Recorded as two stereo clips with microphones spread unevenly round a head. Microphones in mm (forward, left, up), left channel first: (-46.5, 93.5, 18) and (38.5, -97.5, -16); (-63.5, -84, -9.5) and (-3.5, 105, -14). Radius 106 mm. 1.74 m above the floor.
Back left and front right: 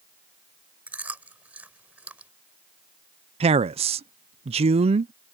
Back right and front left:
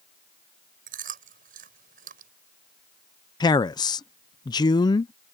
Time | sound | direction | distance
0.9 | chewing | 20° left | ?
3.4 | a man speaking | 100° right | ?